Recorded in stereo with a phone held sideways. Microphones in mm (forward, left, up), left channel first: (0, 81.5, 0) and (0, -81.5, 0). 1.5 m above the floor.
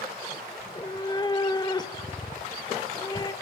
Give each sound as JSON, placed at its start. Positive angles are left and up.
{"t": 0.6, "sound": "a cat meowing", "side_deg": 25, "distance_m": 1.5}